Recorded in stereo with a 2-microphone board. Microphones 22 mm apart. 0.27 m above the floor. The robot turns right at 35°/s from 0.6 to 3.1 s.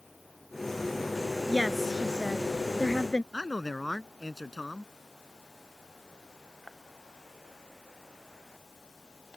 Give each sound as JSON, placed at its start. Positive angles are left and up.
{"t": 1.5, "sound": "a woman speaking", "azimuth_deg": 5}
{"t": 3.3, "sound": "a man speaking", "side_deg": -5}